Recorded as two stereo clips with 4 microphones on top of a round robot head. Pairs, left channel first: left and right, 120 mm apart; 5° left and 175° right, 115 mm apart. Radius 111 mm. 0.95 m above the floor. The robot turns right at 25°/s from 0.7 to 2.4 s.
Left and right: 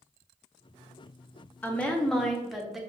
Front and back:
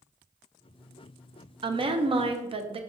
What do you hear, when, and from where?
1.6 s a woman speaking: 160° left, 0.5 m; by 2.8 s straight behind, 0.5 m